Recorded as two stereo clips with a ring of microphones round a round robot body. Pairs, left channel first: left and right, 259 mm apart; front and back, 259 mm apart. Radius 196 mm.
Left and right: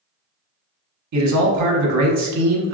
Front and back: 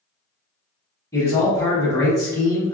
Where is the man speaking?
80° right, 0.8 m.